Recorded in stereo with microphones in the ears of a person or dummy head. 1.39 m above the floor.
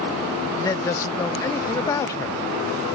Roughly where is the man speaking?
Centre.